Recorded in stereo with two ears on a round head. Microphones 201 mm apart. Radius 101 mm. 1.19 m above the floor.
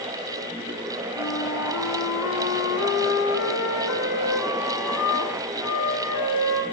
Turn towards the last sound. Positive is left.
turn(degrees=80)